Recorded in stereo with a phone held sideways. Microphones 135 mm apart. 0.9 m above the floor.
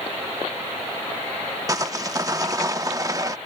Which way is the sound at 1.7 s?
25° right (ahead or behind).